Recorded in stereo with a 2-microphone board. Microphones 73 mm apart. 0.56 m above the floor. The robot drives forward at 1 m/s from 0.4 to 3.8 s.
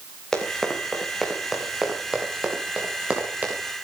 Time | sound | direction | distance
0.3 | running footsteps | 5° left (ahead or behind) | 5.5 m